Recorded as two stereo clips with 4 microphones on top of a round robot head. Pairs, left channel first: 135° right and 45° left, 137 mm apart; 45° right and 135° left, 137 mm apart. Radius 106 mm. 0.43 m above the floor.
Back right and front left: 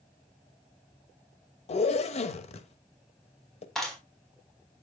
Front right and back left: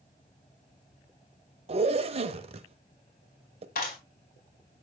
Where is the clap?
50° right, 4 m.